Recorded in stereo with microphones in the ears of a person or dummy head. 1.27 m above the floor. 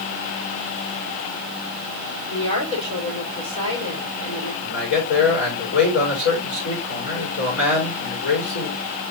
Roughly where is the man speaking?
Left.